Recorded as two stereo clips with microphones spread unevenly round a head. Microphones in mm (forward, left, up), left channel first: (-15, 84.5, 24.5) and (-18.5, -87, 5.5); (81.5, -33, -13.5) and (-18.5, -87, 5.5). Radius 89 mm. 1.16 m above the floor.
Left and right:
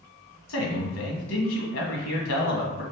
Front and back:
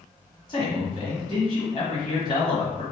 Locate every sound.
0.5 s a man speaking: 95° left, 1.2 m